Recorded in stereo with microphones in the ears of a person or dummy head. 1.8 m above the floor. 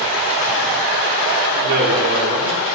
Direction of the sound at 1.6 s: 55° right (ahead or behind).